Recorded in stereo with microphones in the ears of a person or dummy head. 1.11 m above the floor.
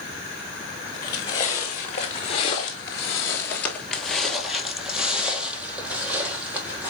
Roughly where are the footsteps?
Left.